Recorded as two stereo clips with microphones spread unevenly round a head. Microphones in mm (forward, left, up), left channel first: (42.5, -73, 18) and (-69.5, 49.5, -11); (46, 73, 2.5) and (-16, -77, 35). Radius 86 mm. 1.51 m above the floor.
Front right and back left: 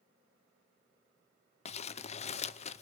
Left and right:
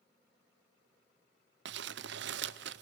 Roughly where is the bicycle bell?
No bicycle bell in this recording.